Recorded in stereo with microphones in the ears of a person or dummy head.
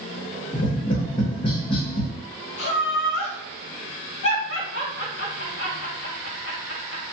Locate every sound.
0.5 s tapping: 35° left (ahead or behind), 1.1 m
2.6 s laughter: 75° left (ahead or behind), 2 m